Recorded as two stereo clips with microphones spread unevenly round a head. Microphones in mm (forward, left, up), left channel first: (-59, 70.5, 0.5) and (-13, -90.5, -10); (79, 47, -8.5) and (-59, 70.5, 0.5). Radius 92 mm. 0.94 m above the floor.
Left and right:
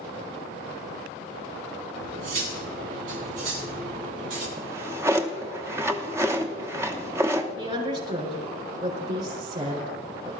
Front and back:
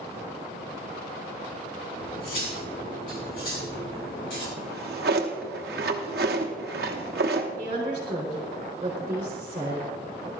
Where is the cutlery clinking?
55° right, 4.5 m.